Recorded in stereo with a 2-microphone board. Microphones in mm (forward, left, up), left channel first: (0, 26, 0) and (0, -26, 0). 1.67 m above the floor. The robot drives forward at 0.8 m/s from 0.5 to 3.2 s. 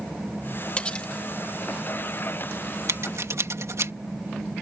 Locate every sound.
0.8 s cutlery clinking: 25° left (ahead or behind); by 1.1 s 20° left (ahead or behind)
2.9 s scissors: 65° right (ahead or behind); by 3.9 s 70° right (ahead or behind)